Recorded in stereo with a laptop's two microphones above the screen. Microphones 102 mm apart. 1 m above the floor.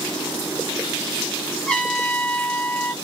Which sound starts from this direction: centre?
A trumpet, at 1.7 s.